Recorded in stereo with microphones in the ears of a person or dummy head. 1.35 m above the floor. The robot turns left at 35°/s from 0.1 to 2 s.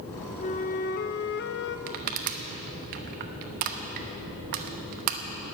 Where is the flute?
135° left, 0.6 m; by 1.8 s 90° left, 0.6 m.